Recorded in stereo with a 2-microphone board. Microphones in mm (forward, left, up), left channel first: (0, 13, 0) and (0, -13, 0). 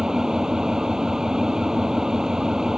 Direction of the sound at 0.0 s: 20° right (ahead or behind).